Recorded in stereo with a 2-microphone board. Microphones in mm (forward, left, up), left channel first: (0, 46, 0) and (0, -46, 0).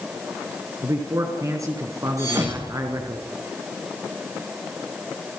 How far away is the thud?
About 5 m.